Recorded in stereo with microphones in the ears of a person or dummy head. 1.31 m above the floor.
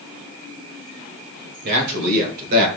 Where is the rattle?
I don't hear a rattle.